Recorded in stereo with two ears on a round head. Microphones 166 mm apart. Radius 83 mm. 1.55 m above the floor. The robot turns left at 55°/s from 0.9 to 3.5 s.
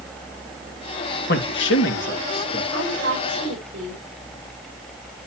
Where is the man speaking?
55° left (ahead or behind), 1.7 m; by 2.6 s 45° left (ahead or behind), 1.7 m.